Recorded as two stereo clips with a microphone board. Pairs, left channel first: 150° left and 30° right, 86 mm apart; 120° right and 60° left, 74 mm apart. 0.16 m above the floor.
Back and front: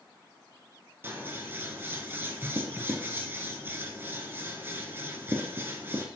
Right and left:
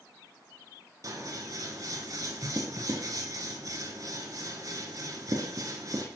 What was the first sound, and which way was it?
Scissors, 30° left.